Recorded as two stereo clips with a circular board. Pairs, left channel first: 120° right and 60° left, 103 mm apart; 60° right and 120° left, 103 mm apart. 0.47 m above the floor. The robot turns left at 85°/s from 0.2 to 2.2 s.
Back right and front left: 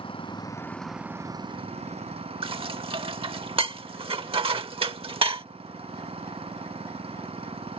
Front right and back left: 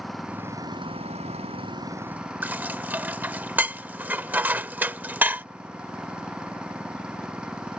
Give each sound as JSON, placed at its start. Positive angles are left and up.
{"t": 0.0, "sound": "an engine running", "azimuth_deg": -150}
{"t": 2.4, "sound": "dishes clattering", "azimuth_deg": 50}